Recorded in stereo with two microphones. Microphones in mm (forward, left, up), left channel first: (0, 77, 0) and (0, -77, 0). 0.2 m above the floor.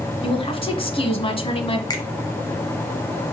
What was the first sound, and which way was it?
A woman speaking, 35° left (ahead or behind).